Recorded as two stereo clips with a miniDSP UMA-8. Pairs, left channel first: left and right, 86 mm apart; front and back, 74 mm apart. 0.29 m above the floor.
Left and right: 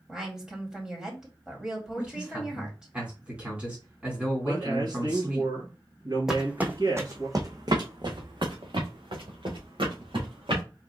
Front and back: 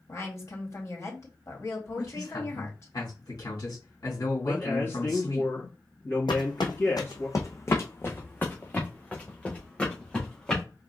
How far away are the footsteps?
About 1.1 m.